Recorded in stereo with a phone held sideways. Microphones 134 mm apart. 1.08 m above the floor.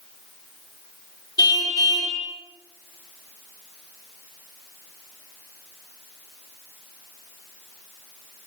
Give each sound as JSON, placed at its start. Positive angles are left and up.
{"t": 1.4, "sound": "a car horn", "side_deg": 30, "distance_m": 6.5}